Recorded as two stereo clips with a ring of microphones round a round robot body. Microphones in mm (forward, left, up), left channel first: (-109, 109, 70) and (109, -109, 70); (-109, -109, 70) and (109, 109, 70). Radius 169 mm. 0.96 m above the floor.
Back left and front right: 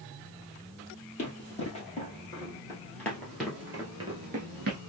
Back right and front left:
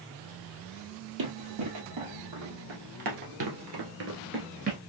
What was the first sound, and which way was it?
Running footsteps, 70° left.